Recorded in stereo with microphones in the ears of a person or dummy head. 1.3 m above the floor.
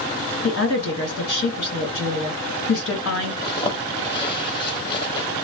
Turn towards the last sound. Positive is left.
turn(degrees=25)  # may be behind; listen again after turning